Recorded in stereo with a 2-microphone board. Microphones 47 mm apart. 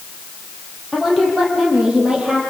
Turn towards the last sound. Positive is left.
turn(degrees=-15)  # may be behind; listen again after turning